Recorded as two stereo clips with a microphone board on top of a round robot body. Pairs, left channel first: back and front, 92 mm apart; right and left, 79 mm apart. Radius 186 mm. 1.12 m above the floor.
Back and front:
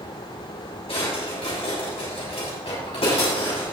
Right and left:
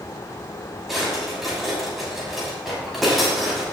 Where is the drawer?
Straight behind, 6.5 m.